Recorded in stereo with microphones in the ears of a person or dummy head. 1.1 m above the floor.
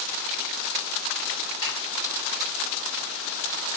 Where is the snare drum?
70° left (ahead or behind), 2.5 m.